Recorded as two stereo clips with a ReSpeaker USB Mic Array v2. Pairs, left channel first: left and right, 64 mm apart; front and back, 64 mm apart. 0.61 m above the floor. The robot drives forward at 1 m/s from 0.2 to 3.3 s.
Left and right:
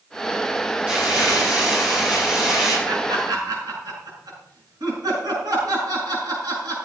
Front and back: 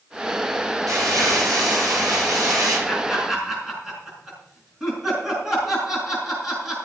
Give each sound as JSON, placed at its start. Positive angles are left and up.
{"t": 0.9, "sound": "crumpling", "azimuth_deg": -170, "distance_m": 7.5}
{"t": 2.9, "sound": "laughter", "azimuth_deg": -90, "distance_m": 6.0}